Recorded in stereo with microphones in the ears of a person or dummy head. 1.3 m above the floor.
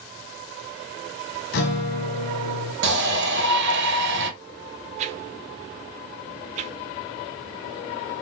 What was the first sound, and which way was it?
A guitar, 60° left (ahead or behind).